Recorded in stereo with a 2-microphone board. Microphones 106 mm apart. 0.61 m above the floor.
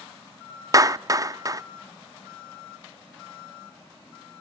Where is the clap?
35° right (ahead or behind), 0.5 m.